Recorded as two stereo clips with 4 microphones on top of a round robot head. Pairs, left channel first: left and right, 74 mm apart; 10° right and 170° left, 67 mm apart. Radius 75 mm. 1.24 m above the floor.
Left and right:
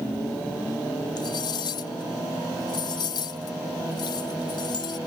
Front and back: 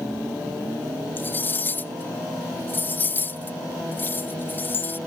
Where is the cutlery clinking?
50° left.